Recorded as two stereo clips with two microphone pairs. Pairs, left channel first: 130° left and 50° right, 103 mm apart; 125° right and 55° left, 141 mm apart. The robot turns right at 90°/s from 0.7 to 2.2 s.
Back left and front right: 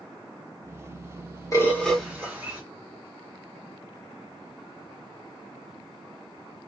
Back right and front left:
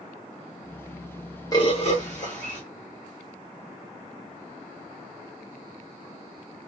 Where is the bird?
Straight behind, 1.6 m; by 2.6 s 120° right, 1.6 m.